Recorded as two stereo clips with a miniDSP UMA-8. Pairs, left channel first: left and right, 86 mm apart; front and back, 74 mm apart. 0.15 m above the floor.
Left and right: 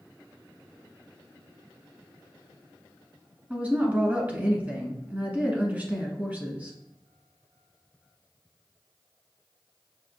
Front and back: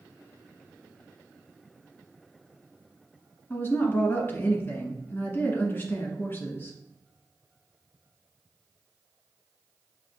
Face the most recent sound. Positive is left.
turn(degrees=-30)